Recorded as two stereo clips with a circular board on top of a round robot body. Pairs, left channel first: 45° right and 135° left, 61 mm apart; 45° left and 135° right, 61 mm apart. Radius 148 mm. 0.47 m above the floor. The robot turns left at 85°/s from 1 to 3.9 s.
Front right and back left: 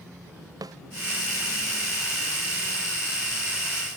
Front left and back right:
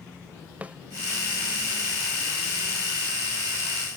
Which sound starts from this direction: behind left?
A snare drum, at 0.6 s.